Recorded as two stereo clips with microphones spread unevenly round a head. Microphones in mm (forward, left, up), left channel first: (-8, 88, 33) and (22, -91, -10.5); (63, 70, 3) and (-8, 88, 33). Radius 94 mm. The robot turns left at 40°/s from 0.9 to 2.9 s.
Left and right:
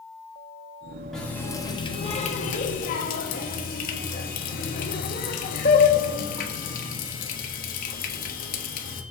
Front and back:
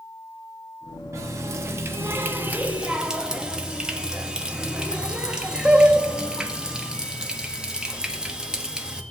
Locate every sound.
1.1 s a running tap: 175° left, 1.4 m; by 9.0 s 105° left, 1.4 m